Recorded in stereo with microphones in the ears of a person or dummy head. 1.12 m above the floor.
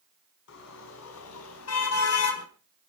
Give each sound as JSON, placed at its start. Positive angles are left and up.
{"t": 0.5, "sound": "a car horn", "side_deg": 70, "distance_m": 5.0}